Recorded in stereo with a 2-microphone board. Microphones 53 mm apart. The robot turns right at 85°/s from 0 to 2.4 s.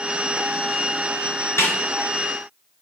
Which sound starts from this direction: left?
A snare drum, at 1.6 s.